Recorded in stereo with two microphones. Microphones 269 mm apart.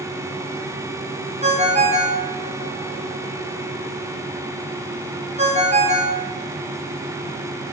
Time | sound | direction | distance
1.4 | a ringtone | 25° right (ahead or behind) | 0.8 m